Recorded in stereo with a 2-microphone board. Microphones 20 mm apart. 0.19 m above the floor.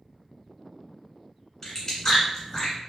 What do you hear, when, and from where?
1.6 s chewing: 25° left (ahead or behind), 1.6 m